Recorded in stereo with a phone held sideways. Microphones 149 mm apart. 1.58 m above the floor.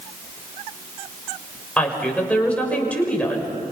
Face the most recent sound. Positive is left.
turn(degrees=10)  # may be behind; listen again after turning